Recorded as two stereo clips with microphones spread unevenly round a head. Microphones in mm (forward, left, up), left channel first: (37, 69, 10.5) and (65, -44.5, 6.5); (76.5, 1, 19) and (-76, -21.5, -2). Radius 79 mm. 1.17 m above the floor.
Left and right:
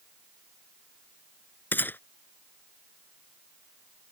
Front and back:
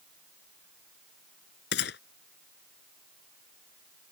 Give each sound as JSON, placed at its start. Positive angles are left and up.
{"t": 1.7, "sound": "a gunshot", "azimuth_deg": 30}